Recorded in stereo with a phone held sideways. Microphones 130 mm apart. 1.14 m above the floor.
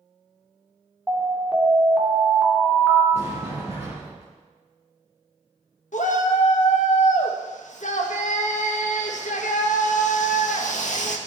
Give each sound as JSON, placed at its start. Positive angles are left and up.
{"t": 1.1, "sound": "an alarm", "side_deg": -10, "distance_m": 2.5}
{"t": 3.1, "sound": "a sliding door", "side_deg": 50, "distance_m": 6.0}
{"t": 5.9, "sound": "a shout", "side_deg": 70, "distance_m": 1.6}